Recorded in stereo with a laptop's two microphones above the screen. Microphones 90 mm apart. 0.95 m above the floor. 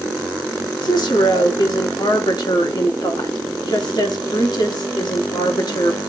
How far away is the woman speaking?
About 1.8 m.